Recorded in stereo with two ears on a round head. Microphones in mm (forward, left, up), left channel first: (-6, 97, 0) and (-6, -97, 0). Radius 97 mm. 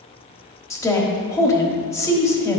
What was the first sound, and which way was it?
A woman speaking, 15° left (ahead or behind).